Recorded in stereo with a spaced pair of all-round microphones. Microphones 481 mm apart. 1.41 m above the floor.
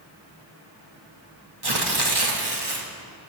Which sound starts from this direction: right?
Tearing paper, at 1.6 s.